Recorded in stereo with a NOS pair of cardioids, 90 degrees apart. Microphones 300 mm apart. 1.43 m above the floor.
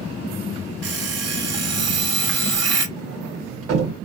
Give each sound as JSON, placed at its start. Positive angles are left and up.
{"t": 0.8, "sound": "an alarm clock", "azimuth_deg": -55, "distance_m": 2.0}
{"t": 3.0, "sound": "a sliding door", "azimuth_deg": -50, "distance_m": 1.7}